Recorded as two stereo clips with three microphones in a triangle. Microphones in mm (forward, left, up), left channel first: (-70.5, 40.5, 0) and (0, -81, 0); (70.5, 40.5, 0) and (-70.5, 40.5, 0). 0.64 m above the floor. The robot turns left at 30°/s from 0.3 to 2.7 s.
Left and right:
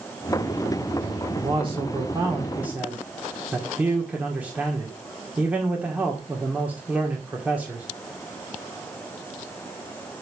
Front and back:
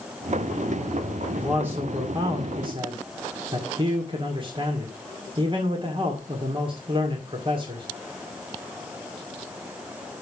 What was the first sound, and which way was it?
A man speaking, 100° right.